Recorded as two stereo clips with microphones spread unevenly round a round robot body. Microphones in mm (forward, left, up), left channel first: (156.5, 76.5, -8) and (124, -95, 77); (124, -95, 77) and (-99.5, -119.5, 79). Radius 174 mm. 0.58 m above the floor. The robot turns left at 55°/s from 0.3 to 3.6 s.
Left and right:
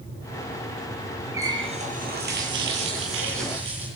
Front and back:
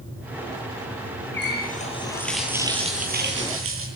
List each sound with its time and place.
1.3 s a running tap: 25° right, 10 m; by 3.9 s 150° right, 10 m